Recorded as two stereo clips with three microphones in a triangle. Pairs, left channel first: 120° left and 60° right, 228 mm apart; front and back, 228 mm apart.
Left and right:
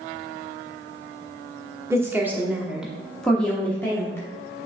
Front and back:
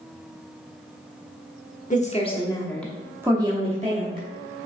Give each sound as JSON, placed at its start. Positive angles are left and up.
{"t": 1.9, "sound": "a woman speaking", "azimuth_deg": 10, "distance_m": 1.0}